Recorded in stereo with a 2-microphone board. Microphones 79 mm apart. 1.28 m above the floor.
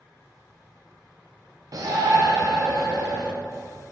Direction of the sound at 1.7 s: 50° right (ahead or behind).